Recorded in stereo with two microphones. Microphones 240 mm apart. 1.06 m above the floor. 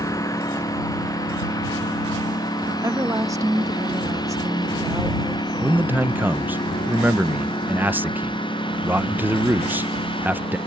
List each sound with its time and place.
0.0 s a lawn mower: 15° left (ahead or behind); by 10.7 s 20° left (ahead or behind)
2.7 s a woman speaking: 15° right (ahead or behind)
5.6 s a man speaking: 10° right (ahead or behind)